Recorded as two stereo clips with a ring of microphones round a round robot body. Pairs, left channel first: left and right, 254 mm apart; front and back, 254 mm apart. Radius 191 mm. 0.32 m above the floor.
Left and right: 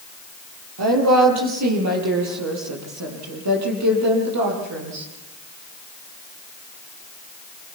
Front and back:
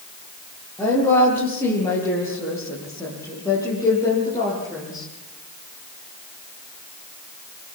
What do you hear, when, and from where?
0.8 s a woman speaking: 85° right, 10 m; by 5.1 s 80° right, 13.5 m